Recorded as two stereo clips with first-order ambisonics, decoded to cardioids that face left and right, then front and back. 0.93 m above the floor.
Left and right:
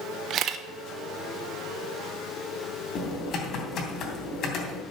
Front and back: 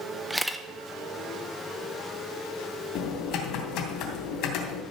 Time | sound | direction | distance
0.3 | a camera shutter | 100° right | 0.7 m
3.0 | typing on a keyboard | 35° left | 3 m